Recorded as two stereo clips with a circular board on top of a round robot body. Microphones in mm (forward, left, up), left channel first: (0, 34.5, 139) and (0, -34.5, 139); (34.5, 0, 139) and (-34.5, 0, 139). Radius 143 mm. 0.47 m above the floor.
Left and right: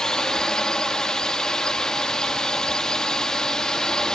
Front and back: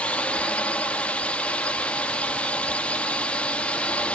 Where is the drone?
25° left.